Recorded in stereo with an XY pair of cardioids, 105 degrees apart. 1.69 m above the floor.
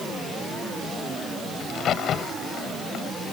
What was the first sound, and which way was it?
A crack, 65° left.